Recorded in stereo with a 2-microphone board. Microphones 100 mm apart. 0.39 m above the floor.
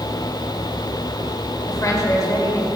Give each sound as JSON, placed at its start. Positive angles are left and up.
{"t": 1.7, "sound": "a woman speaking", "side_deg": 40, "distance_m": 1.5}